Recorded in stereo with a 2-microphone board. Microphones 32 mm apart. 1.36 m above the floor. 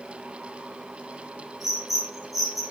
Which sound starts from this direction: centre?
A bird, at 1.6 s.